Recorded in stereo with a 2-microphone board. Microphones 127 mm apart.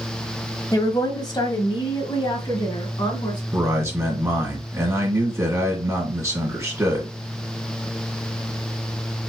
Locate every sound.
0.7 s a woman speaking: 25° left (ahead or behind), 1.1 m; by 3.4 s 40° left (ahead or behind), 2 m
3.5 s a man speaking: 20° right (ahead or behind), 1.8 m